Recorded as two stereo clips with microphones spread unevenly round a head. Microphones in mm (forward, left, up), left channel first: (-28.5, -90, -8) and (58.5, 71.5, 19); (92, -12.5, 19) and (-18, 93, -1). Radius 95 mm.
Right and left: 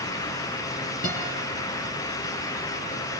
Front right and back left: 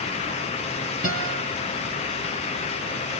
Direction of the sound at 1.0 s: 170° right.